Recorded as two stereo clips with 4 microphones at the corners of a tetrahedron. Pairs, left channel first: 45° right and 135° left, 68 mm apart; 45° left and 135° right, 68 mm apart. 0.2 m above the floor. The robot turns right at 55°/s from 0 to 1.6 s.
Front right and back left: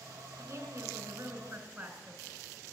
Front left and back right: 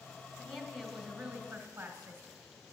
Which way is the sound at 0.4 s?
135° left.